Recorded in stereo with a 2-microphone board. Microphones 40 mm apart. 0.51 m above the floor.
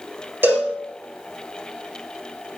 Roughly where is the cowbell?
Right.